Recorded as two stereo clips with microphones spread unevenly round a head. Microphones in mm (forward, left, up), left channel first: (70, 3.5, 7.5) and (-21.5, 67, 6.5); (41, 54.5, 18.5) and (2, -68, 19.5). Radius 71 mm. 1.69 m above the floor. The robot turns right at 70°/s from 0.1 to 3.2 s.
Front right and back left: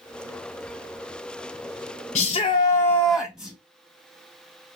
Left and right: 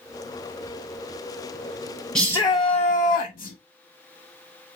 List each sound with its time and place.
2.1 s a shout: 10° right, 0.7 m; by 3.6 s 60° left, 0.7 m